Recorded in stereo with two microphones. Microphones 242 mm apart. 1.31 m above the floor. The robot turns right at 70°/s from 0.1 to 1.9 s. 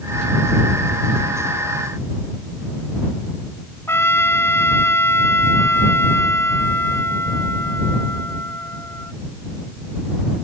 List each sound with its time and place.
3.9 s a trumpet: 10° left (ahead or behind)